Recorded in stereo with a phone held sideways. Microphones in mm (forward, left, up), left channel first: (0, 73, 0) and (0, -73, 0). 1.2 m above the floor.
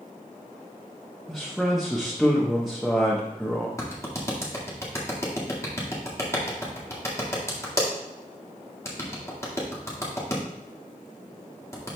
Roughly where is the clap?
Left.